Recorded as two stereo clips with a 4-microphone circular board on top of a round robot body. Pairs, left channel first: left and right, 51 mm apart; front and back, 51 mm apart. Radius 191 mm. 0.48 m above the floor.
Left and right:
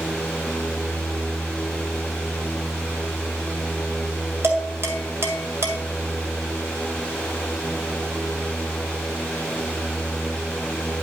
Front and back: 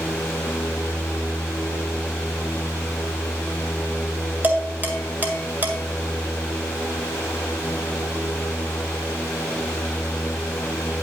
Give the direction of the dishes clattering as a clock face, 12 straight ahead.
4 o'clock.